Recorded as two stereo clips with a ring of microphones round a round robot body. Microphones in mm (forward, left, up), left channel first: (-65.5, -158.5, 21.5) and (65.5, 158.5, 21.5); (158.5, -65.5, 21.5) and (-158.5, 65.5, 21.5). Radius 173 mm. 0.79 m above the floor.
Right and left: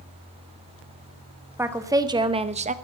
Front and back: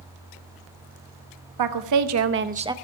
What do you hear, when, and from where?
1.6 s a woman speaking: 150° left, 1.4 m; by 2.7 s 90° left, 0.8 m